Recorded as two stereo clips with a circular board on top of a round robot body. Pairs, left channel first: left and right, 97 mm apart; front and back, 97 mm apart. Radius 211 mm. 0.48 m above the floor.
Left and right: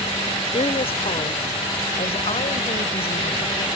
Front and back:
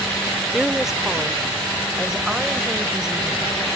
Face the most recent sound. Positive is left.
turn(degrees=95)